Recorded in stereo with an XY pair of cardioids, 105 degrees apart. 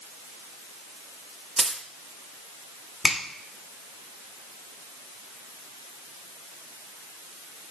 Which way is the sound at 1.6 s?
20° right.